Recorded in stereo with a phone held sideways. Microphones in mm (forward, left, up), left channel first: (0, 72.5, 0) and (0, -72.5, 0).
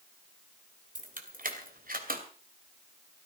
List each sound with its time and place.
0.9 s keys jangling: 70° right (ahead or behind), 2.5 m; by 2.2 s 85° right, 2.5 m